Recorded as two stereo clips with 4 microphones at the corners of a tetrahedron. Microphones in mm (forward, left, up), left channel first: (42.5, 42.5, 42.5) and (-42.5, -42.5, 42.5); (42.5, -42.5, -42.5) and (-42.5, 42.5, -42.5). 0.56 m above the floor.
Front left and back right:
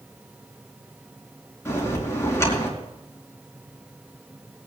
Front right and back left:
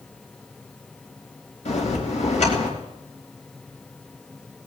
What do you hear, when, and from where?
1.6 s a bell: 25° right, 4.5 m